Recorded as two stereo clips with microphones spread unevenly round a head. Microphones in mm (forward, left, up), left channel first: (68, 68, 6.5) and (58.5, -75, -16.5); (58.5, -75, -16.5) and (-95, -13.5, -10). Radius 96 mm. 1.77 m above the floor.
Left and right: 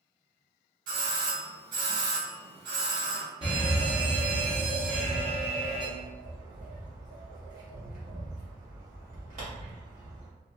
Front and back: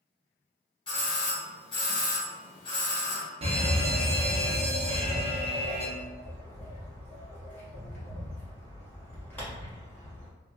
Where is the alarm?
155° right, 0.8 m.